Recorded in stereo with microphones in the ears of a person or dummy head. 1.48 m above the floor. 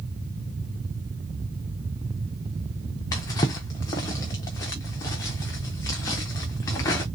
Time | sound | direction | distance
3.1 | a drawer | 15° left (ahead or behind) | 0.5 m